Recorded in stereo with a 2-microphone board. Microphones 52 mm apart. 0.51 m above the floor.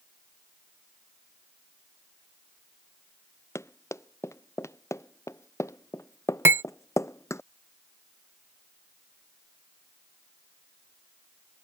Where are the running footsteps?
65° left (ahead or behind).